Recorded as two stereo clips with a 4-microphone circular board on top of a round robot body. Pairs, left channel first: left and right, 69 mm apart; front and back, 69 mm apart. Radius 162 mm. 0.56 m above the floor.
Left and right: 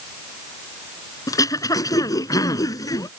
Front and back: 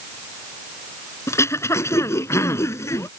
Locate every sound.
1.3 s throat clearing: 50° left